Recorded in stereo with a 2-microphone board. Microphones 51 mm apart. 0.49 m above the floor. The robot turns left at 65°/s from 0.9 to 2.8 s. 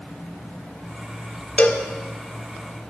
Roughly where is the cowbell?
Left.